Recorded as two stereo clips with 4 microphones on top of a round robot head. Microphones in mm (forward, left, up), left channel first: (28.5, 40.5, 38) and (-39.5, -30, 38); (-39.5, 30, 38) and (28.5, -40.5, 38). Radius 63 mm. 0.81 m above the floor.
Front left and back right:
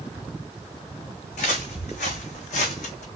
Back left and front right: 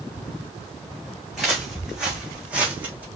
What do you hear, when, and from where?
1.3 s footsteps: 40° left, 3 m; by 3.1 s 25° left, 2.0 m